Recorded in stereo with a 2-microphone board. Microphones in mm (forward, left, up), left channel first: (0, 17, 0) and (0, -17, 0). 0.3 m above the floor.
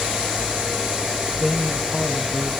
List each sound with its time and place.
1.4 s a man speaking: 5° left (ahead or behind), 1.2 m; by 2.5 s 40° left (ahead or behind), 2.5 m